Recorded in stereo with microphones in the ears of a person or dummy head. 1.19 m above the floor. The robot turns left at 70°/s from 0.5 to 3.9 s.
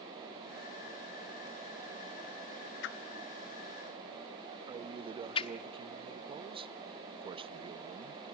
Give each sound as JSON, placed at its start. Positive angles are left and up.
{"t": 2.8, "sound": "a whoosh", "side_deg": 65, "distance_m": 1.2}
{"t": 4.7, "sound": "a man speaking", "side_deg": -25, "distance_m": 0.6}